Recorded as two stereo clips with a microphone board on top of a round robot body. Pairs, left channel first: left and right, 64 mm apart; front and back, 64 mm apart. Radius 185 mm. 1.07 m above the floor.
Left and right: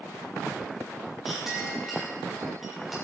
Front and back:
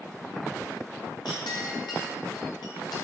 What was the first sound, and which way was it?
A clink, 5° right.